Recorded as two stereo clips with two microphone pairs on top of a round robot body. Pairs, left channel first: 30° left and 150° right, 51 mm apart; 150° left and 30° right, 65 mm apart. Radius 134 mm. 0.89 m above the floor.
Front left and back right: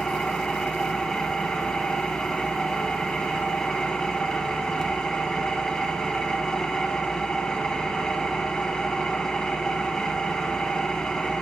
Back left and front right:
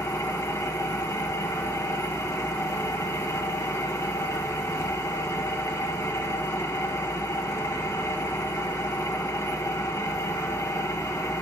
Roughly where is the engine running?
Left.